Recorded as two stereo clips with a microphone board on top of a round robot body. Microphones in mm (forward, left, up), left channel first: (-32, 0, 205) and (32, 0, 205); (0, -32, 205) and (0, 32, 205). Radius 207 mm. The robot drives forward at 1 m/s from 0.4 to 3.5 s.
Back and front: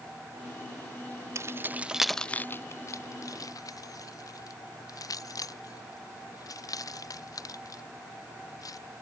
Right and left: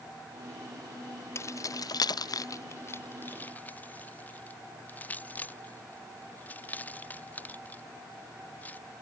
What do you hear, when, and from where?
1.4 s keys jangling: 45° right; by 8.8 s 155° right